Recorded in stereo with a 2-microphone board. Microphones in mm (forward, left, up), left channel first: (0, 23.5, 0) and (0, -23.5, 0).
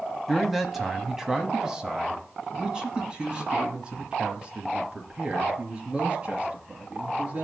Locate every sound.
0.3 s a man speaking: 5° left (ahead or behind), 1.1 m; by 7.4 s 25° right (ahead or behind), 4.5 m